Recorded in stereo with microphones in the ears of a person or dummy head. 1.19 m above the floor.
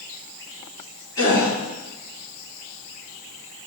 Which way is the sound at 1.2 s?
25° left (ahead or behind).